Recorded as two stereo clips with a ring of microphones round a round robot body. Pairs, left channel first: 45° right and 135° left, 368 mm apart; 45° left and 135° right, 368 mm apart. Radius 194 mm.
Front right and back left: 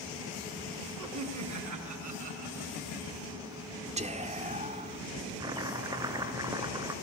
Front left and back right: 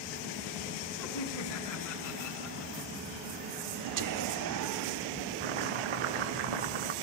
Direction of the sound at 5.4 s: 145° right.